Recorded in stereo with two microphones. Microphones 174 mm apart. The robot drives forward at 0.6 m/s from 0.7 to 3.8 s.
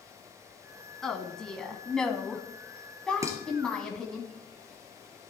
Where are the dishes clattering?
15° right (ahead or behind), 2.5 m.